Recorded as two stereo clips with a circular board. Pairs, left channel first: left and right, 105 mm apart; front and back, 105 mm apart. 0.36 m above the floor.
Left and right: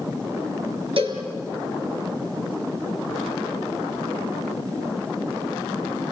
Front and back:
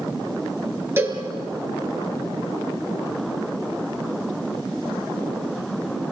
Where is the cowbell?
115° right, 3.5 m.